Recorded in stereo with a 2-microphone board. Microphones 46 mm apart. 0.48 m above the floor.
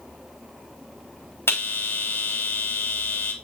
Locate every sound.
1.5 s a bell: 60° left (ahead or behind), 3 m